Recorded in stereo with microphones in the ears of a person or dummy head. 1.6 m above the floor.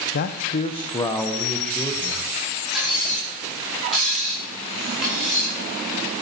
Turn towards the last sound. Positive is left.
turn(degrees=-5)  # may be behind; listen again after turning